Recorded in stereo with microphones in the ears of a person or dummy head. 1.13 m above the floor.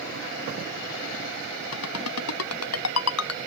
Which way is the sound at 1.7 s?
90° left.